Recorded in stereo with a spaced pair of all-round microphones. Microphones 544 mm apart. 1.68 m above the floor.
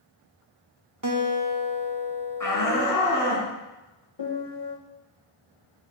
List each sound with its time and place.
1.0 s a guitar: 35° right (ahead or behind), 0.8 m
2.4 s a shout: 35° left (ahead or behind), 3 m
4.2 s a piano: 50° left (ahead or behind), 1.1 m